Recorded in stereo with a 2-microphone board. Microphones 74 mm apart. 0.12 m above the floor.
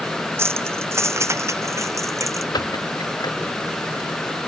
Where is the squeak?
65° left (ahead or behind).